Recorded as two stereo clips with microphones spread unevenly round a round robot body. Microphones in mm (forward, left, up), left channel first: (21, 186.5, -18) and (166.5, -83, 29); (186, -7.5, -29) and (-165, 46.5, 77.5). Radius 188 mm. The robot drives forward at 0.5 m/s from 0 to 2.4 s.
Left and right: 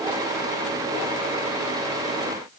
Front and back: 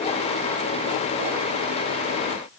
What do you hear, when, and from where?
Only background noise.